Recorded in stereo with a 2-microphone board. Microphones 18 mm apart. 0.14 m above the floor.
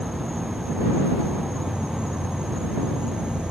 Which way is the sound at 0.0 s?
70° right (ahead or behind).